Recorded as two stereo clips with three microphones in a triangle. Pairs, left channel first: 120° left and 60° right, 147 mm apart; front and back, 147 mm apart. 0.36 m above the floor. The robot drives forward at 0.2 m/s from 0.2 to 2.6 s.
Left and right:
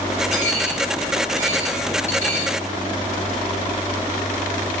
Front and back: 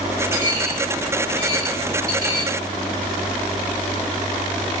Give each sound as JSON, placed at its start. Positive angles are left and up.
{"t": 0.3, "sound": "a dropped coin", "azimuth_deg": 160, "distance_m": 2.5}